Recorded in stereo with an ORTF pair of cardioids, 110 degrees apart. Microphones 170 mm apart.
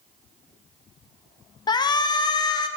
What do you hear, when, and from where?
1.7 s a shout: 25° left, 0.6 m